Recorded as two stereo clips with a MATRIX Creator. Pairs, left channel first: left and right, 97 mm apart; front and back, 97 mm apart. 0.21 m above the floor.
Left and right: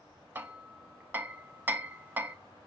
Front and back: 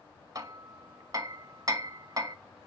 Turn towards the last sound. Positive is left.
turn(degrees=-150)